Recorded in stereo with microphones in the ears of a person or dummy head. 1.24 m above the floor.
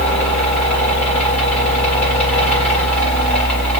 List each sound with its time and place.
0.0 s a fan: 5° left (ahead or behind), 1.3 m